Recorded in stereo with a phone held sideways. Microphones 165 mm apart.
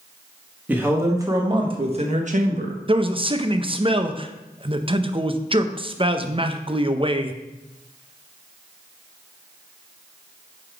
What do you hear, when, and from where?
0.7 s a man speaking: 10° right (ahead or behind), 1.3 m; by 2.8 s 60° right (ahead or behind), 1.1 m
2.9 s a man speaking: 35° right (ahead or behind), 0.6 m